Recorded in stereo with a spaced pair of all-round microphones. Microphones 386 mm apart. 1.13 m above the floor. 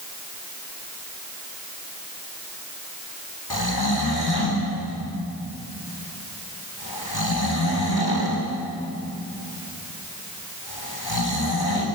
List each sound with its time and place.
3.5 s snoring: 75° left (ahead or behind), 3.5 m